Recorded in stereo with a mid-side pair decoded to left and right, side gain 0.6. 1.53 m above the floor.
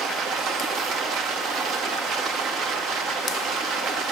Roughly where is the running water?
Ahead right.